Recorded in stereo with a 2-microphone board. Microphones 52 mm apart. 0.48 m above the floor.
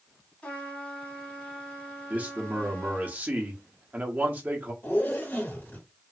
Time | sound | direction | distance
0.4 | a trumpet | 25° left (ahead or behind) | 1.7 m
2.1 | a man speaking | 30° right (ahead or behind) | 1.0 m
4.8 | a zipper | 40° left (ahead or behind) | 1.8 m